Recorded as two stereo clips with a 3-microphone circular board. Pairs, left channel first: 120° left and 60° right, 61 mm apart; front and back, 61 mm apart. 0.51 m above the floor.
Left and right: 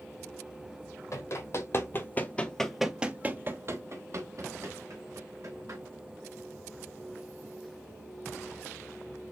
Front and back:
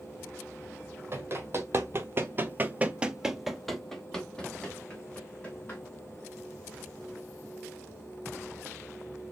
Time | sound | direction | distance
1.1 | running footsteps | 135° left | 1.0 m